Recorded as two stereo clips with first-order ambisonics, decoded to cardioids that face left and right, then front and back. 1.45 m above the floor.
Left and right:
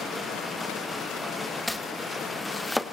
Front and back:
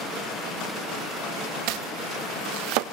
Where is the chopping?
175° left, 1.1 m.